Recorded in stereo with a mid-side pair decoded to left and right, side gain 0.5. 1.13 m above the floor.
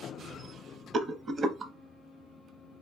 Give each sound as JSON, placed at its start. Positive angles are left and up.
{"t": 0.9, "sound": "a rattle", "azimuth_deg": -45, "distance_m": 0.7}